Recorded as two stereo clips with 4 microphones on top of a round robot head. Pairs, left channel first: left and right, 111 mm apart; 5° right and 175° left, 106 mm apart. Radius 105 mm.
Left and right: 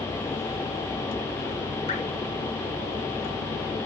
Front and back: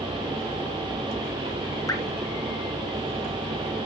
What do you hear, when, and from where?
1.9 s dripping: 55° left, 4 m